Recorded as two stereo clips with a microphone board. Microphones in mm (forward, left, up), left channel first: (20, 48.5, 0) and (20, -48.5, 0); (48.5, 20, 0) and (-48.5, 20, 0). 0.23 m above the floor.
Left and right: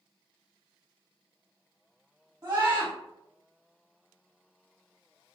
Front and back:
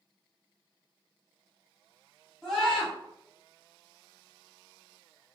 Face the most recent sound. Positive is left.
turn(degrees=-80)